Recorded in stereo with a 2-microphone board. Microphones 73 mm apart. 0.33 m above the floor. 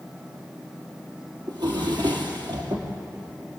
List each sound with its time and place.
1.5 s a drawer: 85° right, 3.5 m